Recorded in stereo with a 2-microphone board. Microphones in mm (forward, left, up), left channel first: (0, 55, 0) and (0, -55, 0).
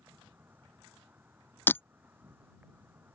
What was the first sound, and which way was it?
An insect, 15° right (ahead or behind).